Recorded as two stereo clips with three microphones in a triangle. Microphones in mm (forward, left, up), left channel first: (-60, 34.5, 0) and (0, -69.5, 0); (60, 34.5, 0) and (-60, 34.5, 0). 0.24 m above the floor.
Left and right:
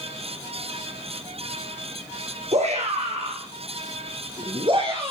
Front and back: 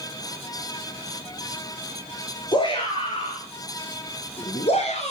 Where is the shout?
45° right, 4 m; by 5.1 s 15° right, 3.5 m.